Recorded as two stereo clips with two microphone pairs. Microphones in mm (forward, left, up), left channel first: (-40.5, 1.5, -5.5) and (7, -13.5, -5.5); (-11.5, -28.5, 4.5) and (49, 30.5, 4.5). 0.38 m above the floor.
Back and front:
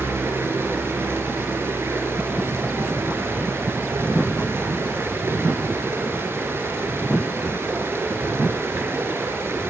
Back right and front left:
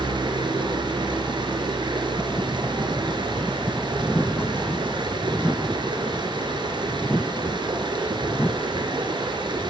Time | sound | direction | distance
0.0 | running water | 20° left | 4 m